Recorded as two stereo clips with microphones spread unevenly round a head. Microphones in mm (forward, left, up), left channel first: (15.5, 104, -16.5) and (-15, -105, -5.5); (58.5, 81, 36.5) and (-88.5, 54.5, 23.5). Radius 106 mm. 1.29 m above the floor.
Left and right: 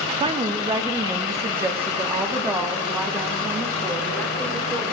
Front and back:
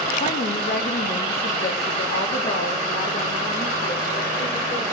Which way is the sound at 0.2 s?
35° right.